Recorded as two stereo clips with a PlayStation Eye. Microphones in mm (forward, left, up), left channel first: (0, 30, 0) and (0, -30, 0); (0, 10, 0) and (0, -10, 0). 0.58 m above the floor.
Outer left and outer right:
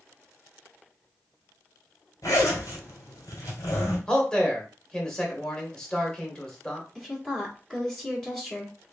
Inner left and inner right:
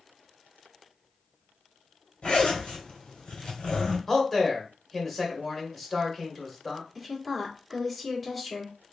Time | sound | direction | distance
2.2 | a zipper | 75° left (ahead or behind) | 2 m
4.1 | a man speaking | 15° left (ahead or behind) | 1.7 m
7.0 | a woman speaking | 10° left (ahead or behind) | 1.5 m